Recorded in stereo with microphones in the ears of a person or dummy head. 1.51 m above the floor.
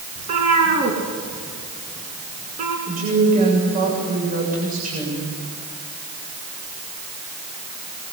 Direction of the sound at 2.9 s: 40° right (ahead or behind).